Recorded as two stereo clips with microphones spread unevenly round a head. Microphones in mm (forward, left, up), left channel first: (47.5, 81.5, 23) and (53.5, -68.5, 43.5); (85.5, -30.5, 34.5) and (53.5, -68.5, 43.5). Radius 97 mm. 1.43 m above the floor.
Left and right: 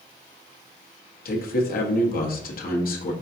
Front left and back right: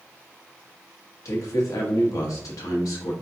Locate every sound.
1.2 s a man speaking: 65° left, 1.0 m